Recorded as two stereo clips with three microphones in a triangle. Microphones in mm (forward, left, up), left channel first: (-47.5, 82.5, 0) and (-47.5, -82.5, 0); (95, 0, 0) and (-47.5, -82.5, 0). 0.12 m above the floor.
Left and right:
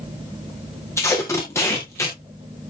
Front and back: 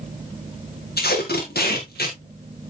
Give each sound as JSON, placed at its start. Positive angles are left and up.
{"t": 1.0, "sound": "tape being pulled", "azimuth_deg": 15, "distance_m": 3.5}